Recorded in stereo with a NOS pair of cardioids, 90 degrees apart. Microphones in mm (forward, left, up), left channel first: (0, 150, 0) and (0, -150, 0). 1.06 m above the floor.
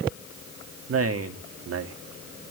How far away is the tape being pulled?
I don't hear tape being pulled.